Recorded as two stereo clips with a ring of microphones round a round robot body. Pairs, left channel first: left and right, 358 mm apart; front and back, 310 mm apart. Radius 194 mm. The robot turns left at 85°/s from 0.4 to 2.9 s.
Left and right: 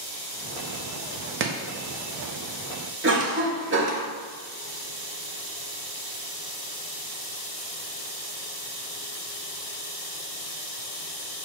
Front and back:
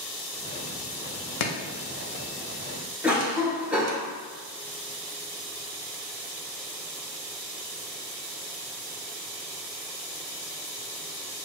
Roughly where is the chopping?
Ahead right.